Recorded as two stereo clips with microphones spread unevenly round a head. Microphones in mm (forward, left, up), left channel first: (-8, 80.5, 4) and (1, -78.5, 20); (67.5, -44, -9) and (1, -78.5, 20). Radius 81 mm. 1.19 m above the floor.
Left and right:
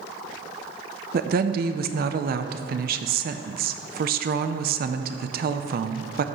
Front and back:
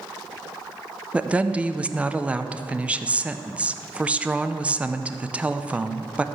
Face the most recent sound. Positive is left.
turn(degrees=-65)